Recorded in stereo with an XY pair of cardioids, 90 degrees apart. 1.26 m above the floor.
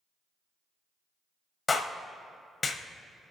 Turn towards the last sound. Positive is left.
turn(degrees=35)